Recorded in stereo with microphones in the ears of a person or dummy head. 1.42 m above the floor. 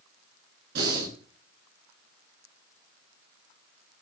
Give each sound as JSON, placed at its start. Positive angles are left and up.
{"t": 0.8, "sound": "breathing", "side_deg": -60, "distance_m": 8.5}